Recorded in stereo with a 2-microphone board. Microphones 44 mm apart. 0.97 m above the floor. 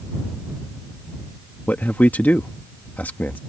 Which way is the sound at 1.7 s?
45° left (ahead or behind).